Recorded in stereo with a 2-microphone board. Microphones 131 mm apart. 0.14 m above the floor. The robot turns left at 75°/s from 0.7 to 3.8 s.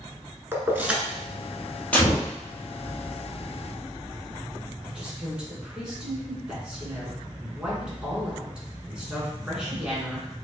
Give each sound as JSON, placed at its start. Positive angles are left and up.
{"t": 0.5, "sound": "keys jangling", "side_deg": -20, "distance_m": 0.9}
{"t": 1.9, "sound": "a gunshot", "azimuth_deg": 170, "distance_m": 1.8}
{"t": 4.8, "sound": "a woman speaking", "side_deg": -5, "distance_m": 1.7}